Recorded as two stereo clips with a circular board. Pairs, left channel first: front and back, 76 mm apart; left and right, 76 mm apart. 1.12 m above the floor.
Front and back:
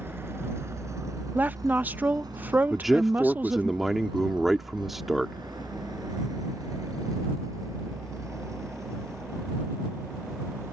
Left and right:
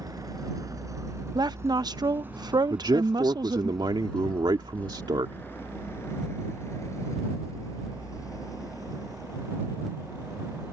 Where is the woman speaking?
115° right.